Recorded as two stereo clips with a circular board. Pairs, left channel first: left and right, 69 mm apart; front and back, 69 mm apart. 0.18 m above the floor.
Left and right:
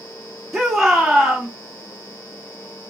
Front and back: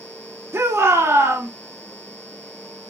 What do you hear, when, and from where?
0.5 s a shout: 175° left, 1.5 m